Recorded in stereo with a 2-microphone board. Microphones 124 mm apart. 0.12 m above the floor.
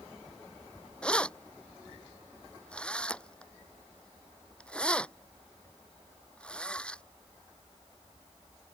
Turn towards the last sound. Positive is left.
turn(degrees=10)  # may be behind; listen again after turning